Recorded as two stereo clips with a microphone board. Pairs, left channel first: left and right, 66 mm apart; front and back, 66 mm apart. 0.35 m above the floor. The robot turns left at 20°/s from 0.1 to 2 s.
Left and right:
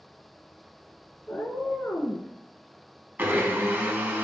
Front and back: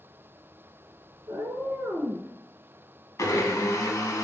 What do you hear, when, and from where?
1.3 s a cat meowing: 150° left, 0.6 m; by 2.3 s 135° left, 0.6 m
3.2 s a blender: 30° right, 0.7 m